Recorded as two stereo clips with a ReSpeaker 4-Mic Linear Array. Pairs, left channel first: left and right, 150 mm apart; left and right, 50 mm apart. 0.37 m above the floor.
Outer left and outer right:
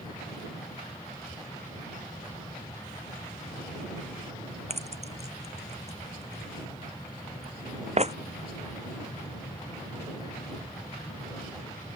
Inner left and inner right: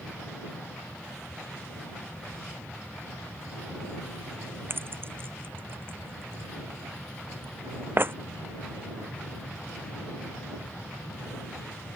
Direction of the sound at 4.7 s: 45° right (ahead or behind).